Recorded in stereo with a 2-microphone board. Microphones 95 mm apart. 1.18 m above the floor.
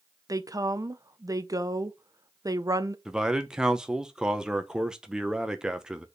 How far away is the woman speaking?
About 0.7 m.